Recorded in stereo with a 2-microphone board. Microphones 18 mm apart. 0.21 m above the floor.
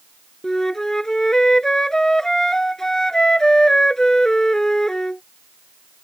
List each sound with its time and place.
0.4 s a flute: 25° left (ahead or behind)